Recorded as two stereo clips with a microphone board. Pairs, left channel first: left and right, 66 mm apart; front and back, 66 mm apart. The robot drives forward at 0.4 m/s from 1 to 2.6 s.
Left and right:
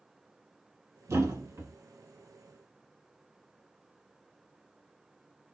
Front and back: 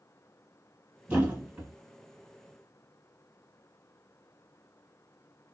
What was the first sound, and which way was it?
A thud, 115° right.